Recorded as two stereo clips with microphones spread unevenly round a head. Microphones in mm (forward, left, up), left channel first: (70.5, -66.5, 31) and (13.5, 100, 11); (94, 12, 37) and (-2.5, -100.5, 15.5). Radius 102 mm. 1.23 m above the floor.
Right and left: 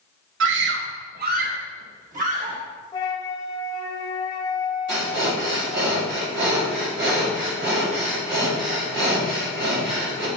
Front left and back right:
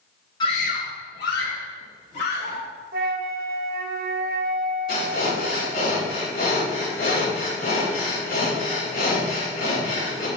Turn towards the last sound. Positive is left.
turn(degrees=95)